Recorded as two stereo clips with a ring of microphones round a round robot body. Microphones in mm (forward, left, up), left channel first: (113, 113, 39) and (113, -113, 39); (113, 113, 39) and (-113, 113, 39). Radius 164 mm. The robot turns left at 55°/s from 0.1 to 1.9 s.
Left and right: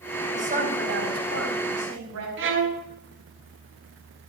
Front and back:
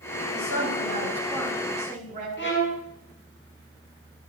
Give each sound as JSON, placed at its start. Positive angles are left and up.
{"t": 0.3, "sound": "a woman speaking", "azimuth_deg": -30, "distance_m": 4.0}
{"t": 2.4, "sound": "a violin", "azimuth_deg": -60, "distance_m": 1.5}